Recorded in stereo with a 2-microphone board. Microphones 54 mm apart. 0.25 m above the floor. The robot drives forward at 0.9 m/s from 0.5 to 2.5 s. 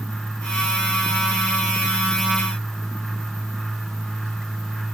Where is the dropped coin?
I don't hear a dropped coin.